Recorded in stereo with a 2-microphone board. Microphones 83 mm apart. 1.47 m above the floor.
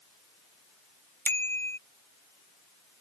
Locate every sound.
1.2 s a bicycle bell: 25° left (ahead or behind)